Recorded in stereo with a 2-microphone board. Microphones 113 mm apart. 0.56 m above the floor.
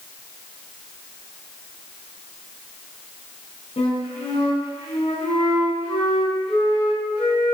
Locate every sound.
3.8 s a flute: 75° left (ahead or behind), 5 m